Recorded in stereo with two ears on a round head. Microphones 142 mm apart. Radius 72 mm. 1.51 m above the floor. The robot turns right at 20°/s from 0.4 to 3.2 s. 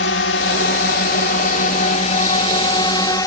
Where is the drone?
100° left; by 3.3 s 155° left.